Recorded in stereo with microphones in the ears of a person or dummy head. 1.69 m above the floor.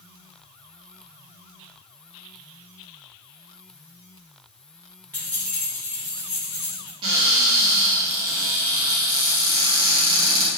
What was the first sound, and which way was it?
Keys jangling, 10° left (ahead or behind).